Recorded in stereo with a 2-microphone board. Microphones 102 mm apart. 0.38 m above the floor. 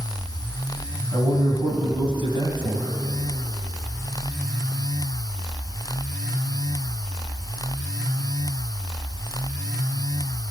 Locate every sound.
1.1 s a man speaking: 60° right (ahead or behind), 3 m